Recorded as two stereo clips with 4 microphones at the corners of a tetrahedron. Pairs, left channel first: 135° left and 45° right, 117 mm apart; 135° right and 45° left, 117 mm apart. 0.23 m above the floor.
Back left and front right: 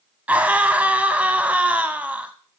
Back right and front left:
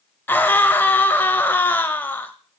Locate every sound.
0.3 s a scream: 95° right, 0.9 m